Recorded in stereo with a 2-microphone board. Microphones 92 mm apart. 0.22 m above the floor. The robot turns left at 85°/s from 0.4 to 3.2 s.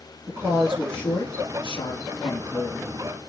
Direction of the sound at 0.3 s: 145° right.